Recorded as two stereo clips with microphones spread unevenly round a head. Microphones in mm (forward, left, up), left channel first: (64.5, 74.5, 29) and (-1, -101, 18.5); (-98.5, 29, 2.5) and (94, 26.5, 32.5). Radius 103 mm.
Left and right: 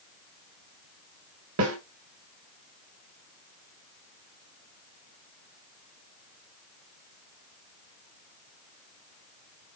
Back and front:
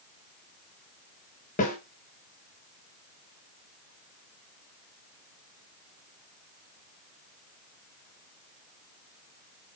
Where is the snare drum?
125° right, 4 m.